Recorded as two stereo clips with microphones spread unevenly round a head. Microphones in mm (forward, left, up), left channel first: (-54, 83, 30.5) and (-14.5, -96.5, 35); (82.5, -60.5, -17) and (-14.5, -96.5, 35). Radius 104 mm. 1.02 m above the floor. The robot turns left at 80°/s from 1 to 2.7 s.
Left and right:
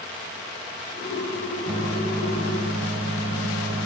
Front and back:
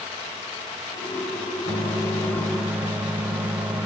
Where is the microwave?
10° left, 0.7 m; by 3.9 s 75° right, 0.7 m.